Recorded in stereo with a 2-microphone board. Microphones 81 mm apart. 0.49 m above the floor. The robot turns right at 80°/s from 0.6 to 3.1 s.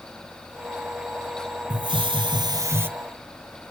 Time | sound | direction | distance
1.7 | a hiss | 120° right | 0.8 m